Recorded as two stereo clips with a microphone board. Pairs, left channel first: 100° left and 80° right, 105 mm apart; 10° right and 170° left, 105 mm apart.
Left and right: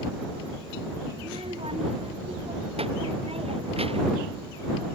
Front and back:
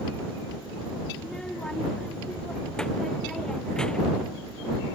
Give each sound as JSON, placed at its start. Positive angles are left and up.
{"t": 1.2, "sound": "a child speaking", "azimuth_deg": -95}